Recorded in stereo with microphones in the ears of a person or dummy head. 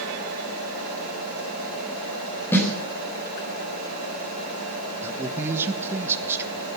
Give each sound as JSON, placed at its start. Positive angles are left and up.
{"t": 2.5, "sound": "a snare drum", "side_deg": 10, "distance_m": 4.5}
{"t": 5.0, "sound": "a man speaking", "side_deg": -10, "distance_m": 1.4}